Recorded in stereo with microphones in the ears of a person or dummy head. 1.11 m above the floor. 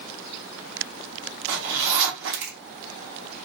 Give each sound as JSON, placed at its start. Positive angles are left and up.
{"t": 1.5, "sound": "a zipper", "side_deg": -60, "distance_m": 1.0}